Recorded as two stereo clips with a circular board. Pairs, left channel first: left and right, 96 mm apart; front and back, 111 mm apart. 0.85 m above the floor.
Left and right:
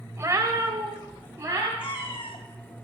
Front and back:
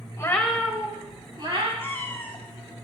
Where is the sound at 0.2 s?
50° right, 0.7 m; by 1.7 s 150° right, 1.4 m.